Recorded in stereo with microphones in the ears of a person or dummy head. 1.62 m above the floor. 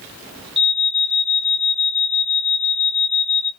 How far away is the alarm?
About 2.5 m.